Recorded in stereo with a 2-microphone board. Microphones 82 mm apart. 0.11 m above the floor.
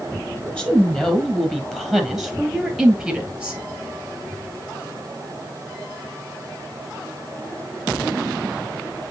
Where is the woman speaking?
10° left (ahead or behind), 3 m; by 3.6 s 10° right (ahead or behind), 1.7 m.